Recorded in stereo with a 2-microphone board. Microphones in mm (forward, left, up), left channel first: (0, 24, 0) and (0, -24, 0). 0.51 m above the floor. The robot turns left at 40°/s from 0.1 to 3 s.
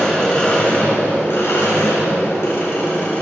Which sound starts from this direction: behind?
An engine running, at 0.0 s.